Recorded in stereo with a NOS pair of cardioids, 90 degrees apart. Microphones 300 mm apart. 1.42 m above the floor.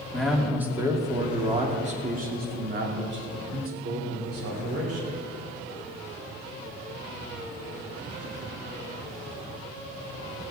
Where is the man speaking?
Straight ahead, 2.5 m; by 5.2 s 60° right, 4 m.